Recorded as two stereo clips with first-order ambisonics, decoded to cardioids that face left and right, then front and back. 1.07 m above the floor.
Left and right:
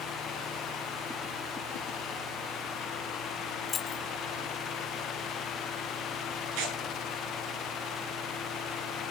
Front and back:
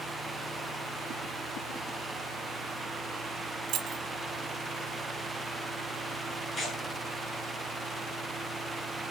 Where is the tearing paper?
75° right, 9.5 m.